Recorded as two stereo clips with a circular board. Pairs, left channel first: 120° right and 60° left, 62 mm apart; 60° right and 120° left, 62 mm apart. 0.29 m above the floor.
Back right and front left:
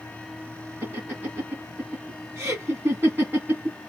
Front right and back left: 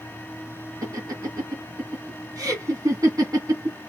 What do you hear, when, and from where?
0.8 s laughter: 105° left, 2 m